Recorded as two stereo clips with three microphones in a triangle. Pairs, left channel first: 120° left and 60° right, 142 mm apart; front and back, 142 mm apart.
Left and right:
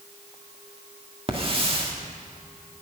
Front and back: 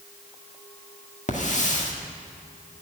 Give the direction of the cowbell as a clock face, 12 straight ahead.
No cowbell in this recording.